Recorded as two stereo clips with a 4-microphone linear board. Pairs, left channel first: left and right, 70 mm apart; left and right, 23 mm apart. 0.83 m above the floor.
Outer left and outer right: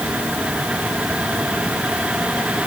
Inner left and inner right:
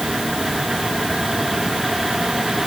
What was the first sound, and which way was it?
Only background noise.